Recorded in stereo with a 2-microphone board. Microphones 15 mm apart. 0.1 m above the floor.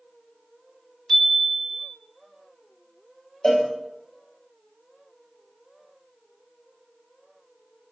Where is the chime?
30° left (ahead or behind), 0.8 m.